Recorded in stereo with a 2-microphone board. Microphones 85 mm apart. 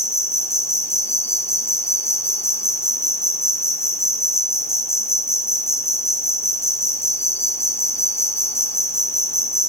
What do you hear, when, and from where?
0.0 s an insect: 30° left (ahead or behind), 1.1 m